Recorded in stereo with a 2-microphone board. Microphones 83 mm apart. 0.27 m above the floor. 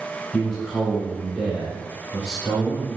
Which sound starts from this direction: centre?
A man speaking, at 0.3 s.